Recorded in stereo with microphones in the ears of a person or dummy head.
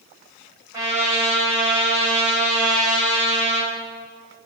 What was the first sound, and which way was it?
A trumpet, 20° right (ahead or behind).